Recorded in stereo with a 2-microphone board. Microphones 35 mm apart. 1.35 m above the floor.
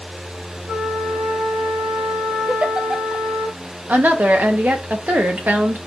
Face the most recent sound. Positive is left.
turn(degrees=-55)  # may be behind; listen again after turning